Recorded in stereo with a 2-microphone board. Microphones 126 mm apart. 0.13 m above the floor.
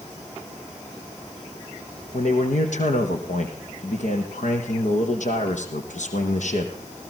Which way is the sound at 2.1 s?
70° left (ahead or behind).